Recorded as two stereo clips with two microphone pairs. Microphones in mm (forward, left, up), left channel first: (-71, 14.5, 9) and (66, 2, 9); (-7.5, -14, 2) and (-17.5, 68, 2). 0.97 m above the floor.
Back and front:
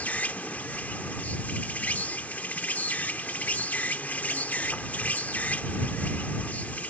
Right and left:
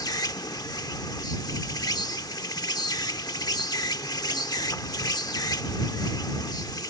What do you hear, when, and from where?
0.0 s an insect: 110° right